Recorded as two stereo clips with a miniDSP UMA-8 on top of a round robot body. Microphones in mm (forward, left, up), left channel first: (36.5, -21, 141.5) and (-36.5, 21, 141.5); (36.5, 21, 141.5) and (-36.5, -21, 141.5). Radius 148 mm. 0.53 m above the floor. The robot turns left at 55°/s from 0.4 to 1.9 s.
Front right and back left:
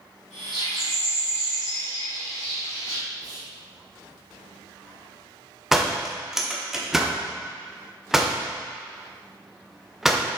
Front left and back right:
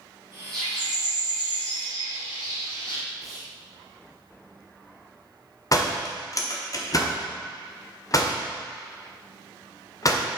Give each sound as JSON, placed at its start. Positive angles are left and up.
{"t": 0.5, "sound": "a bird", "azimuth_deg": 115, "distance_m": 3.0}
{"t": 3.2, "sound": "whispering", "azimuth_deg": 120, "distance_m": 1.7}
{"t": 5.7, "sound": "a door slam", "azimuth_deg": 65, "distance_m": 1.2}